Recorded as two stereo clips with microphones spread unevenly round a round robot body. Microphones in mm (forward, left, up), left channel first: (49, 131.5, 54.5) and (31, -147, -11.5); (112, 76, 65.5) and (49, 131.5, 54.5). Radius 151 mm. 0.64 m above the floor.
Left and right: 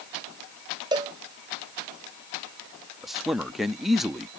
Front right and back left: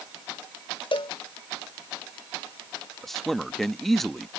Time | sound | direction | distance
0.9 | a cowbell | 20° right | ?
3.0 | a man speaking | 140° right | ?